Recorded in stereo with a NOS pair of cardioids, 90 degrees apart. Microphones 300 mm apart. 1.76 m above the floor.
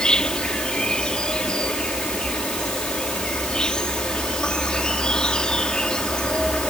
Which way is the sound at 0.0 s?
5° left.